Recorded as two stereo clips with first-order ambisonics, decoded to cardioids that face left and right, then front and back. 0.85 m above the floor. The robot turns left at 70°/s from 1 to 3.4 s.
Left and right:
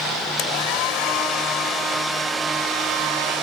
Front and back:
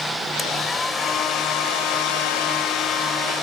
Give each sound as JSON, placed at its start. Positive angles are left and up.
{"t": 0.4, "sound": "a hair dryer", "azimuth_deg": 80}